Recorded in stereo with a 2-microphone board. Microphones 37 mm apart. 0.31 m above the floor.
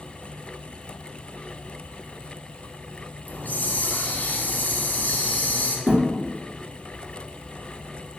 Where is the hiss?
50° left (ahead or behind), 0.6 m.